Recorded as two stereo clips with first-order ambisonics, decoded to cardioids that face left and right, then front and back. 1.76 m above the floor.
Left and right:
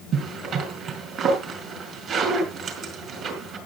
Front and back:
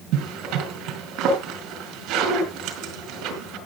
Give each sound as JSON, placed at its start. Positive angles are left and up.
{"t": 0.1, "sound": "a zipper", "azimuth_deg": -145, "distance_m": 4.0}